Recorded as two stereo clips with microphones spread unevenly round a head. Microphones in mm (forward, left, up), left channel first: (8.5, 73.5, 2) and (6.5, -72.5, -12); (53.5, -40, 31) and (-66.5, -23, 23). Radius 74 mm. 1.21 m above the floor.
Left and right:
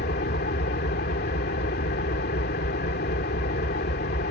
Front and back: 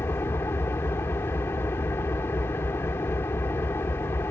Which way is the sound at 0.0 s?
65° left.